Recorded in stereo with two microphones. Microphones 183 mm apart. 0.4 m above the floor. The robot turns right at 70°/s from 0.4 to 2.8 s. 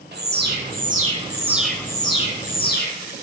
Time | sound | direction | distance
0.1 | an alarm | 90° right | 0.9 m